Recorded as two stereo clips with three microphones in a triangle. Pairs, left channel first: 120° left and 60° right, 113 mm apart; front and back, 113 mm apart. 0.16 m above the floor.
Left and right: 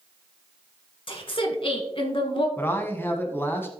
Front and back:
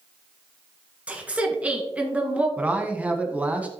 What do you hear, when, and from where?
1.1 s a woman speaking: 105° left, 1.8 m
2.6 s a man speaking: 130° left, 1.1 m